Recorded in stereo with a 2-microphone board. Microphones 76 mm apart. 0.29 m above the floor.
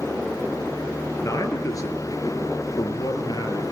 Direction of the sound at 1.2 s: 45° left (ahead or behind).